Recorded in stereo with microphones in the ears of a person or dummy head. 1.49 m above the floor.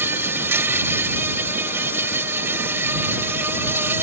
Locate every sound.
0.0 s an insect: 5° right (ahead or behind)